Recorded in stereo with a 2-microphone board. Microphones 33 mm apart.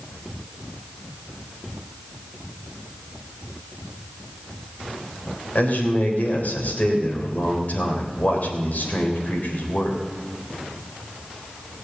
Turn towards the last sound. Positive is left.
turn(degrees=60)  # may be behind; listen again after turning